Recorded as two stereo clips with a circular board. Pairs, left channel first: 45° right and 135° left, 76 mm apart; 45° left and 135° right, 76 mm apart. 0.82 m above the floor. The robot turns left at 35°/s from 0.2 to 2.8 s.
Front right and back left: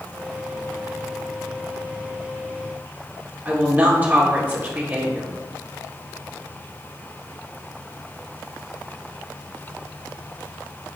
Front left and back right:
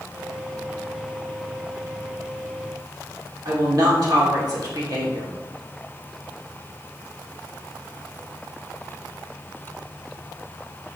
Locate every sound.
3.5 s a woman speaking: 160° right, 2.5 m